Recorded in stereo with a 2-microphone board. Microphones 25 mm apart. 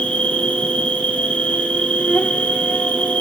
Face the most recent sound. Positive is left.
turn(degrees=60)  # may be behind; listen again after turning